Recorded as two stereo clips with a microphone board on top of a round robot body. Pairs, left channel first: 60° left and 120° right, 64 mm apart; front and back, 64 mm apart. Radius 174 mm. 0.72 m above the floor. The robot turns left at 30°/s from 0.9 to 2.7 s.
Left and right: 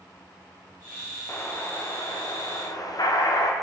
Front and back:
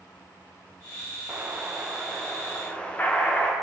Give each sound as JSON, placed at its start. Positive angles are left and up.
{"t": 1.3, "sound": "an explosion", "azimuth_deg": 110, "distance_m": 3.0}